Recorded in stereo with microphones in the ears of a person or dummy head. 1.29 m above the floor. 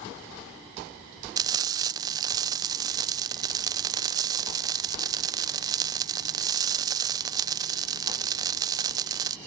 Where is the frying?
20° right (ahead or behind).